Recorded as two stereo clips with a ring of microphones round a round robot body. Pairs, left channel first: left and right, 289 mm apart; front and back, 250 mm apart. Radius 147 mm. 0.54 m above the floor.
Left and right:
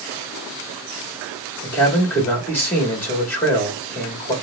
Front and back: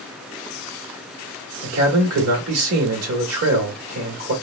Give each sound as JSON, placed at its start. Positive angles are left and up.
{"t": 1.6, "sound": "a man speaking", "azimuth_deg": 170, "distance_m": 1.7}